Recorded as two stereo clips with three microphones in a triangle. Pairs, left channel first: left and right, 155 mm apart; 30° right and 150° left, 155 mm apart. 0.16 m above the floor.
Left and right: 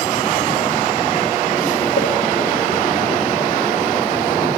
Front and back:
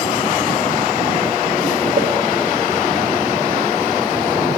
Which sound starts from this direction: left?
A pop, at 2.0 s.